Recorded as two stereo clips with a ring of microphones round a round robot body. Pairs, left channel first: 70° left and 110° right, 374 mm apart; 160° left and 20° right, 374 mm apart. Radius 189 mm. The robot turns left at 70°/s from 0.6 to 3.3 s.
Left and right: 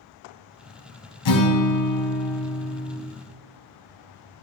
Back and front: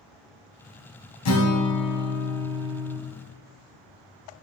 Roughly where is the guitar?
Left.